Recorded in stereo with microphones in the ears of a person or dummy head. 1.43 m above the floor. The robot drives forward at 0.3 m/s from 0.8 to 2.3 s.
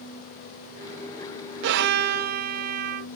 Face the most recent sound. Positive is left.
turn(degrees=-55)  # may be behind; listen again after turning